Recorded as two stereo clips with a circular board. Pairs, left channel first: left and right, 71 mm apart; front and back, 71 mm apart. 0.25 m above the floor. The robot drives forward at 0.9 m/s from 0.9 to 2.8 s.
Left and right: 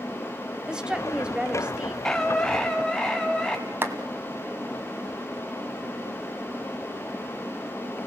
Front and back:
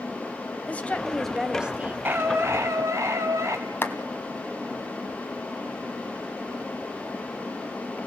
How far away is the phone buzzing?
No phone buzzing in this recording.